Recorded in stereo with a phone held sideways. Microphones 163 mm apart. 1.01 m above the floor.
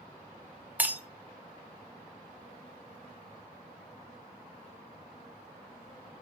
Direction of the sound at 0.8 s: 10° right (ahead or behind).